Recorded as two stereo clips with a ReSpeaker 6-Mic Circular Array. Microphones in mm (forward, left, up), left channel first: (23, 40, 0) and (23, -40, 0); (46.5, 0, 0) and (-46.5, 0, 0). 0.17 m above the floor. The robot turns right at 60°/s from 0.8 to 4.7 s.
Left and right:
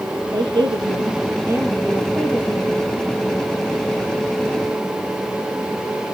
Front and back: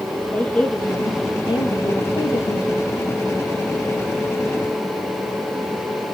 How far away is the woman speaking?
About 5.5 m.